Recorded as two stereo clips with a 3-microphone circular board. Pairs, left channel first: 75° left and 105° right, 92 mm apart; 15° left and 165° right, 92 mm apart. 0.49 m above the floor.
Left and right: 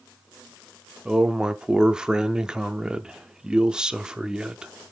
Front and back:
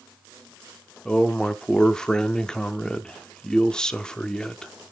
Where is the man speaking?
45° right, 0.7 m.